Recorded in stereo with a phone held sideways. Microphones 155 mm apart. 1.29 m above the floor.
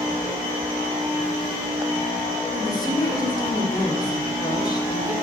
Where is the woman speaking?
25° left (ahead or behind), 1.3 m.